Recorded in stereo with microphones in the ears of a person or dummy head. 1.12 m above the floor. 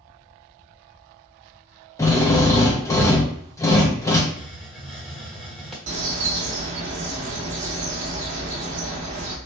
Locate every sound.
2.0 s a drill: 15° left (ahead or behind), 0.5 m
4.3 s a hiss: centre (ahead or behind), 0.9 m
5.9 s a bird: 40° right (ahead or behind), 0.7 m